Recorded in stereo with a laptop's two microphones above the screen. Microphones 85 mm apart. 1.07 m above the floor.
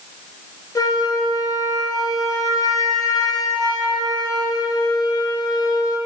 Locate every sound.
0.8 s a flute: 45° left (ahead or behind), 0.6 m